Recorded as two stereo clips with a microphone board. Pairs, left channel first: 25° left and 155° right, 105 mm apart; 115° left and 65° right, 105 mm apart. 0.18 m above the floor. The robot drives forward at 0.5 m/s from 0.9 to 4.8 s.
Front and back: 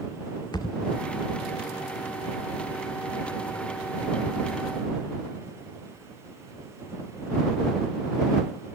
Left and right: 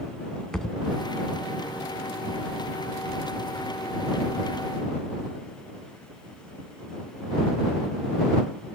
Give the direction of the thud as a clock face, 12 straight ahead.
11 o'clock.